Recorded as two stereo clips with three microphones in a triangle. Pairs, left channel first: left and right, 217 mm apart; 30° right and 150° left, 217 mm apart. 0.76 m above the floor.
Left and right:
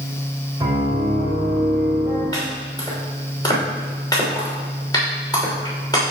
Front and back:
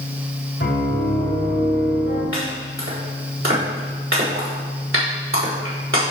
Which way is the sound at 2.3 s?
160° left.